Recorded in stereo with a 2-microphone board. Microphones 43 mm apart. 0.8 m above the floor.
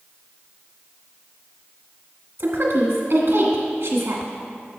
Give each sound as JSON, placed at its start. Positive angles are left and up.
{"t": 2.4, "sound": "a woman speaking", "side_deg": -65, "distance_m": 1.5}